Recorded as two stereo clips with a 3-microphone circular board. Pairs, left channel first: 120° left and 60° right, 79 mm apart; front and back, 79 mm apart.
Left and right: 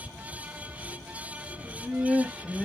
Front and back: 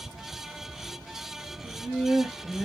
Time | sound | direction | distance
1.6 | laughter | 120° right | 1.0 m